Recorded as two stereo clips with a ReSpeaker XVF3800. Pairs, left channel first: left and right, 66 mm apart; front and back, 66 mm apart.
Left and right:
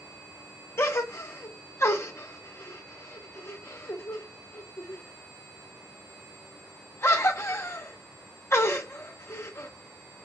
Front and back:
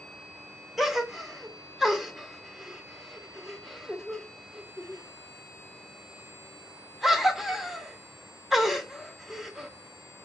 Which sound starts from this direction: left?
A gasp, at 0.8 s.